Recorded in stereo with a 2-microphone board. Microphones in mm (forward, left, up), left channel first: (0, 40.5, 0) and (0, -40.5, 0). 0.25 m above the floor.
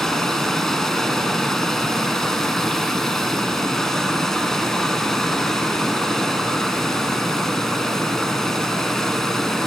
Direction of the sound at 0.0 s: 5° left (ahead or behind).